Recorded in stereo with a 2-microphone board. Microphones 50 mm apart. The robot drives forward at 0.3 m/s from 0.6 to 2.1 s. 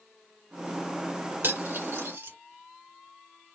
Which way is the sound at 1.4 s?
55° right (ahead or behind).